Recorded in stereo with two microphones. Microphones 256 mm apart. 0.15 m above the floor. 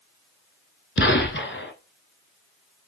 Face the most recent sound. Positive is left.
turn(degrees=50)  # may be behind; listen again after turning